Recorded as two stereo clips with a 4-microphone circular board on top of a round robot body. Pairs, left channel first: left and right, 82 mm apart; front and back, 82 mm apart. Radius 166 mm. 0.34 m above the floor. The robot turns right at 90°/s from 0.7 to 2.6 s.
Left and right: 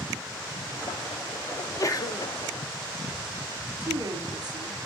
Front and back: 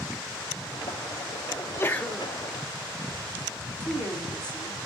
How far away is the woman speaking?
About 4.5 m.